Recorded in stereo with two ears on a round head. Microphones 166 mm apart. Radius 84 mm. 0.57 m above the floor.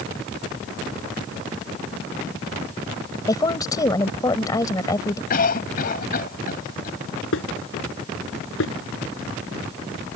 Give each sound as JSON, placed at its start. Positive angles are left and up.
{"t": 3.3, "sound": "a woman speaking", "side_deg": 20}
{"t": 5.3, "sound": "a cough", "side_deg": 50}
{"t": 7.3, "sound": "dishes clattering", "side_deg": 75}